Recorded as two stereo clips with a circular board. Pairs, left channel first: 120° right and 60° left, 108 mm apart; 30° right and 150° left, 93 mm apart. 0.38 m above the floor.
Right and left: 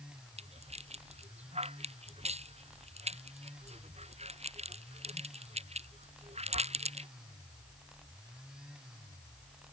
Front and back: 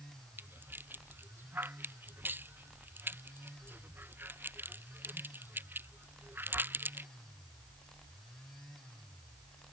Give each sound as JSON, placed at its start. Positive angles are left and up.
{"t": 0.4, "sound": "a rattle", "azimuth_deg": 80}